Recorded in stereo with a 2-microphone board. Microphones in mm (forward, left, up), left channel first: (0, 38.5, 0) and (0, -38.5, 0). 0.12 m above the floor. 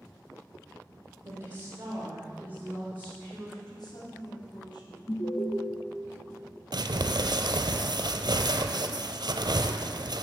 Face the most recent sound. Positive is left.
turn(degrees=-70)  # may be behind; listen again after turning